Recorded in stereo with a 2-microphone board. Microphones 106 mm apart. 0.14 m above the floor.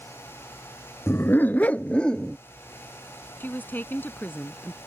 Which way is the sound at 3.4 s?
20° left (ahead or behind).